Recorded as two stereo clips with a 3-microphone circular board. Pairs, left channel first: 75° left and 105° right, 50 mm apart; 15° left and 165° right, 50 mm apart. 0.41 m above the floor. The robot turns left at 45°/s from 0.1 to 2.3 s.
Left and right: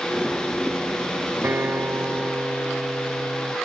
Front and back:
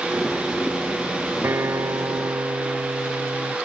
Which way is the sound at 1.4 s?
140° right.